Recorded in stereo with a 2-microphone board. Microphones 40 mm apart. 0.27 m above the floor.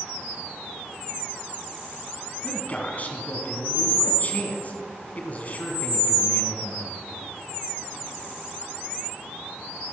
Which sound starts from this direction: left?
A man speaking, at 2.4 s.